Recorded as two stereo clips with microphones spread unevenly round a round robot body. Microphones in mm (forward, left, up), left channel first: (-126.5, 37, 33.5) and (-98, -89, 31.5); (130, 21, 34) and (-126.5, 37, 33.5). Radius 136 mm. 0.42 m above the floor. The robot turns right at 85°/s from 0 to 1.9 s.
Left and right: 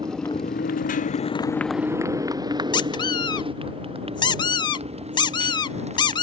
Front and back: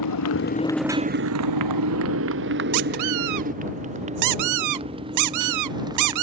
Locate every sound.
0.0 s a motorcycle: 5° right; by 6.2 s 105° right
2.7 s a squeak: 160° left